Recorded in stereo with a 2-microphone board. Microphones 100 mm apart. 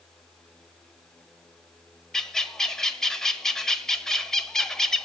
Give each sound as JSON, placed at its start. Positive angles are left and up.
{"t": 2.1, "sound": "a bird", "side_deg": 5, "distance_m": 1.2}